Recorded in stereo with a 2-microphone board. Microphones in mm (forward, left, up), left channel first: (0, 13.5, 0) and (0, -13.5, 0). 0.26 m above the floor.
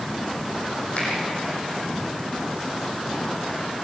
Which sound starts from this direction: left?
A finger snap, at 1.0 s.